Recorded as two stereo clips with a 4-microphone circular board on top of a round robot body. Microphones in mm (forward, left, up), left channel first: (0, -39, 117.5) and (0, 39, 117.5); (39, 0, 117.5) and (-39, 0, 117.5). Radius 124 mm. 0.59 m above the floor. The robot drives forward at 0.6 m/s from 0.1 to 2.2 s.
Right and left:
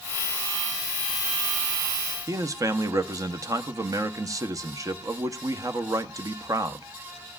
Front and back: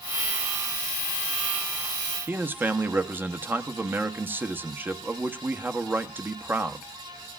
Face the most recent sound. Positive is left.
turn(degrees=120)